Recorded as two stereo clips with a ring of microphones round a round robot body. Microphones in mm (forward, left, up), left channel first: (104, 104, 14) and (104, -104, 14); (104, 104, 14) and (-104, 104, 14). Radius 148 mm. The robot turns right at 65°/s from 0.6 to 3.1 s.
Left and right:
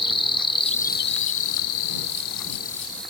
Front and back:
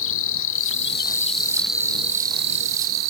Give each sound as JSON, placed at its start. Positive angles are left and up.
{"t": 0.0, "sound": "an insect", "azimuth_deg": 20}